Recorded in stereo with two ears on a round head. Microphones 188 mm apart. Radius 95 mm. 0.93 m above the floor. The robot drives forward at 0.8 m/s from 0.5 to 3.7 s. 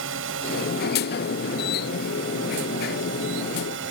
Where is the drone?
70° right (ahead or behind); by 3.9 s 65° right (ahead or behind).